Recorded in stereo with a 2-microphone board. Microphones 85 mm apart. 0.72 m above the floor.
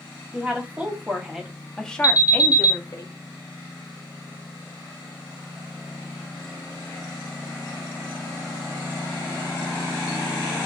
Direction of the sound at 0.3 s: 20° right (ahead or behind).